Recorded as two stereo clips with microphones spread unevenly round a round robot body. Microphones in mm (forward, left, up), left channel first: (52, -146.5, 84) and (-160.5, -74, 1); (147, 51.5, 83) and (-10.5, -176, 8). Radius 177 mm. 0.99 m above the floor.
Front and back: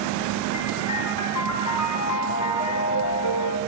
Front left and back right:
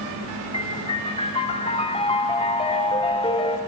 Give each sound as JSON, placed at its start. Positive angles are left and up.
{"t": 0.5, "sound": "a piano", "azimuth_deg": -20, "distance_m": 3.0}